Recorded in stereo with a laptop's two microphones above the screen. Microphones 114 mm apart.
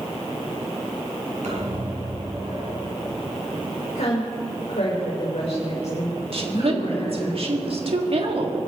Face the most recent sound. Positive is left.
turn(degrees=-60)  # may be behind; listen again after turning